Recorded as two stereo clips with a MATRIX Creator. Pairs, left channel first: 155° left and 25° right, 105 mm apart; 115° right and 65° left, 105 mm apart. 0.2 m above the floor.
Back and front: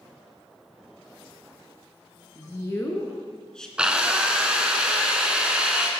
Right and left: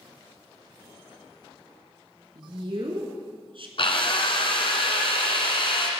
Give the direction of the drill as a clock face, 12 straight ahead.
3 o'clock.